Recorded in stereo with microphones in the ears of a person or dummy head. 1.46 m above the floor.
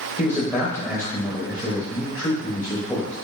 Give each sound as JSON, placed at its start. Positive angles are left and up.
{"t": 0.2, "sound": "a man speaking", "side_deg": 10, "distance_m": 0.8}